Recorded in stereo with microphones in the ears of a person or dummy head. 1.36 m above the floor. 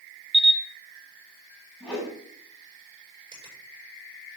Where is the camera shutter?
10° left (ahead or behind), 0.6 m.